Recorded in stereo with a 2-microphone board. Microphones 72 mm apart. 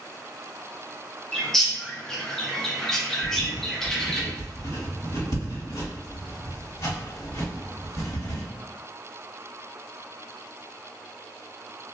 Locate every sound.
1.3 s a bird: 5° left (ahead or behind), 0.6 m
3.2 s writing: 60° left (ahead or behind), 1.5 m